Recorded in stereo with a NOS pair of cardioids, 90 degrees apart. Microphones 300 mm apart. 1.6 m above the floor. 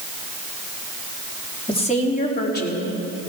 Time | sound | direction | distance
1.7 | a woman speaking | 15° left | 3 m